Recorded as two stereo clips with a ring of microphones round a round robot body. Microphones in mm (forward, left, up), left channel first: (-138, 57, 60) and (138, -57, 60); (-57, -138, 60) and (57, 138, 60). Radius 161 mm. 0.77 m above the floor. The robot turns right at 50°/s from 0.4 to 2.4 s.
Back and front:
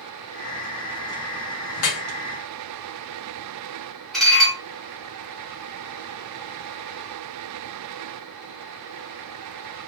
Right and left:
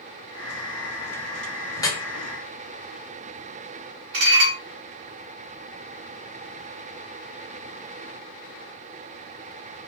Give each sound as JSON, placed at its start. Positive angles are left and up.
{"t": 1.8, "sound": "dripping", "azimuth_deg": 165, "distance_m": 1.0}
{"t": 4.1, "sound": "dishes clattering", "azimuth_deg": 70, "distance_m": 1.0}